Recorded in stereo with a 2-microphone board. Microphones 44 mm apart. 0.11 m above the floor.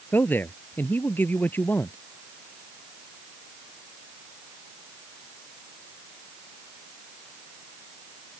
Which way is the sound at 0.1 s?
50° left (ahead or behind).